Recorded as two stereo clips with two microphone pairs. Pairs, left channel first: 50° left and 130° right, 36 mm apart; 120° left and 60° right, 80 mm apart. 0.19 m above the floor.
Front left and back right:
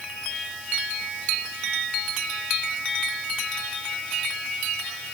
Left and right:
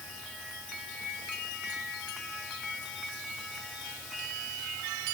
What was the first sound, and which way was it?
Only background noise.